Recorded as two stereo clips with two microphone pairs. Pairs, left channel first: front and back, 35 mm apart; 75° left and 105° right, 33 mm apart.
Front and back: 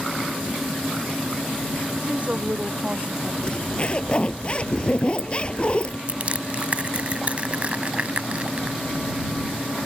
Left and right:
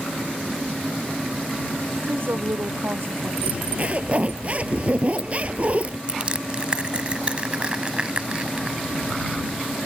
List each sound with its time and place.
2.0 s a woman speaking: 120° right; by 3.3 s 115° right
3.4 s a zipper: 55° right
6.1 s crushing: 150° right